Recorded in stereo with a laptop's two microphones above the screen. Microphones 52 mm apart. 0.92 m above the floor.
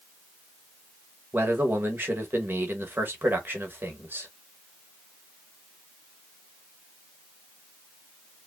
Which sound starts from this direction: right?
A man speaking, at 1.3 s.